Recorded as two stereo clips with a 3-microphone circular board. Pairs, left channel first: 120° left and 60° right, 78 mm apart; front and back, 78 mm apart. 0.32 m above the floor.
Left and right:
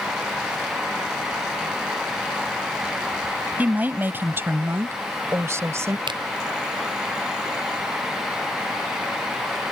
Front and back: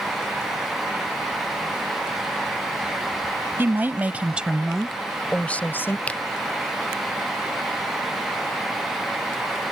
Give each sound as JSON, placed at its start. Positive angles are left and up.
{"t": 3.6, "sound": "a woman speaking", "azimuth_deg": -125}
{"t": 6.1, "sound": "a finger snap", "azimuth_deg": -75}